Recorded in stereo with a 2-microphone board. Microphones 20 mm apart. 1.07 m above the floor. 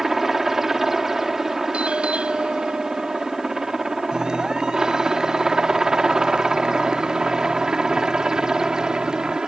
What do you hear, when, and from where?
0.0 s a helicopter: 15° right (ahead or behind); by 9.5 s 35° right (ahead or behind)
1.7 s a doorbell: 70° right (ahead or behind)
4.1 s a clap: 35° right (ahead or behind)